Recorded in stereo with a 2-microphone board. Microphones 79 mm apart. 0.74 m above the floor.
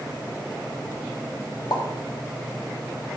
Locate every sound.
1.7 s a pop: 60° left (ahead or behind), 1.1 m